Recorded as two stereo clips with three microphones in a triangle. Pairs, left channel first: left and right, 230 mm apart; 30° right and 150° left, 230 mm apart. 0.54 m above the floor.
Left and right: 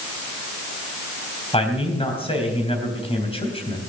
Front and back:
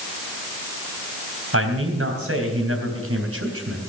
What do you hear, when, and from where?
1.5 s a man speaking: 155° left, 3 m